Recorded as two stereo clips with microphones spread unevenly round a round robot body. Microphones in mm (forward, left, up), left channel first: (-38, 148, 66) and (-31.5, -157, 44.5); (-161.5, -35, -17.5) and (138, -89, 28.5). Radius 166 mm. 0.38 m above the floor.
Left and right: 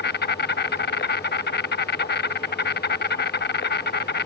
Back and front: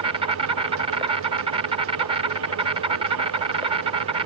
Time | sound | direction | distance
0.0 | an insect | 65° left | ?